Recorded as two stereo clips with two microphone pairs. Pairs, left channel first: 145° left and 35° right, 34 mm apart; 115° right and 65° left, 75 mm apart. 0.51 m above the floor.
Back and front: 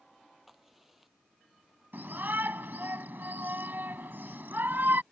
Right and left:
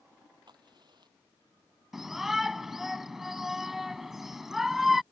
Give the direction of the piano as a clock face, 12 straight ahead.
No piano in this recording.